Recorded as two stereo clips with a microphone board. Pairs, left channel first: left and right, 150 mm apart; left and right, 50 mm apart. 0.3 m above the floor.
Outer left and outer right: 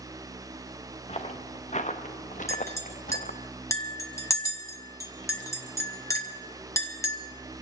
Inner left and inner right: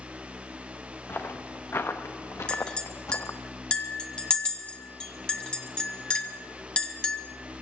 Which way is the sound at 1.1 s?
45° left (ahead or behind).